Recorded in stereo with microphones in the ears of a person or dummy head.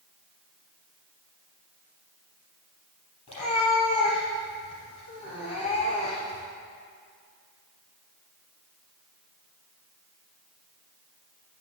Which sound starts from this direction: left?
A cat meowing, at 3.3 s.